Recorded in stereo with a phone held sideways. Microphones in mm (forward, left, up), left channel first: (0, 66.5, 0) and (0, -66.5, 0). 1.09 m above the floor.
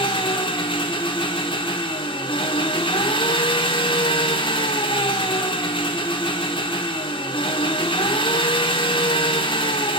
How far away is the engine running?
About 1.1 m.